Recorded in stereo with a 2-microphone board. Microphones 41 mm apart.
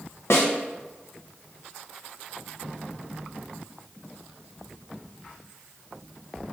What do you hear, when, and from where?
0.3 s a snare drum: 80° left, 0.6 m